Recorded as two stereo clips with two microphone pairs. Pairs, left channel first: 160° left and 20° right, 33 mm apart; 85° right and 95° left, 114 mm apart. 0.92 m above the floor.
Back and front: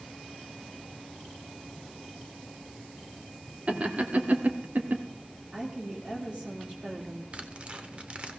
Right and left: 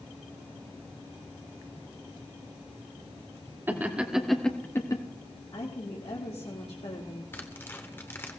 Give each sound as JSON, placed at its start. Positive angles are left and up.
{"t": 3.7, "sound": "laughter", "azimuth_deg": 25, "distance_m": 1.9}
{"t": 5.5, "sound": "a woman speaking", "azimuth_deg": -70, "distance_m": 1.7}
{"t": 7.3, "sound": "tearing paper", "azimuth_deg": -25, "distance_m": 1.1}